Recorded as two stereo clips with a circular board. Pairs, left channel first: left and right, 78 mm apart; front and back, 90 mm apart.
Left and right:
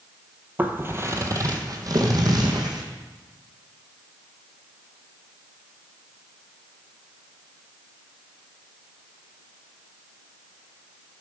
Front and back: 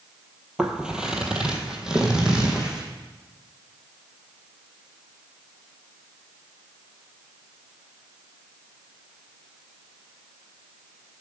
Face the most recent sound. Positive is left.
turn(degrees=-100)